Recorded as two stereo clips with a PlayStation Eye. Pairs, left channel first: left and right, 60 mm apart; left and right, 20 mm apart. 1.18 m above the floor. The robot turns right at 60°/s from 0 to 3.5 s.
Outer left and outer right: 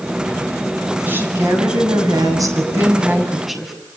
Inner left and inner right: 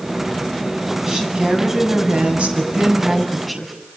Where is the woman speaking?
150° right, 7.5 m; by 3.7 s straight ahead, 7.5 m.